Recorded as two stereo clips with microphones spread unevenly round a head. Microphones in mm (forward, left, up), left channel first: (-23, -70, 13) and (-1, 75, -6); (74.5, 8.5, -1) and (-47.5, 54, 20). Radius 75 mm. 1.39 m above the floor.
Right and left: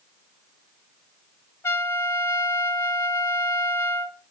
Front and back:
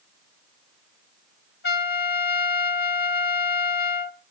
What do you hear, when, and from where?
1.6 s a trumpet: 25° right, 1.2 m